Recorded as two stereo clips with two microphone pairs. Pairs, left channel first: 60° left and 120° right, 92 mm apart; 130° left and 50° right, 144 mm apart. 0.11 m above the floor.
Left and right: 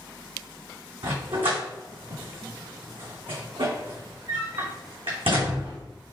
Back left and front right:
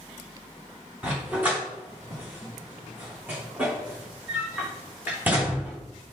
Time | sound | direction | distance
1.0 | a dog barking | 125° right | 3.5 m